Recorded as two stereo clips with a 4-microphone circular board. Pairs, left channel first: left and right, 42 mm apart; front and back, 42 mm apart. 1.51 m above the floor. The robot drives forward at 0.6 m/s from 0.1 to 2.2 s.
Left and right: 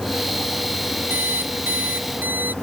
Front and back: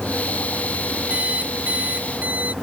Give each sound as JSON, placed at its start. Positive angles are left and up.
{"t": 1.1, "sound": "an alarm clock", "azimuth_deg": -125}